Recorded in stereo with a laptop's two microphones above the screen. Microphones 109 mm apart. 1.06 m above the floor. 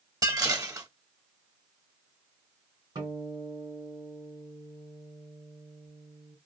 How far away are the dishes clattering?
About 1.0 m.